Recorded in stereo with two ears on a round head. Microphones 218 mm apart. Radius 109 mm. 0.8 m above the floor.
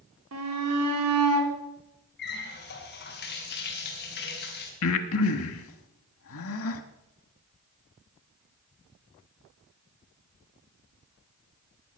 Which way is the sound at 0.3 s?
70° right (ahead or behind).